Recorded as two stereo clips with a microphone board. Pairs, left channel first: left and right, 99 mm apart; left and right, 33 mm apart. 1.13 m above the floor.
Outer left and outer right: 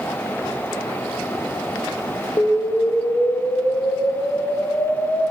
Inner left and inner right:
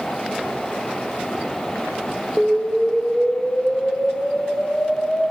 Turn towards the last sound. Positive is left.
turn(degrees=40)  # may be behind; listen again after turning